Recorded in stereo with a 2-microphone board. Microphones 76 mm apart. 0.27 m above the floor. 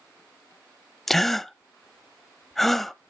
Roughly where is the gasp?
Centre.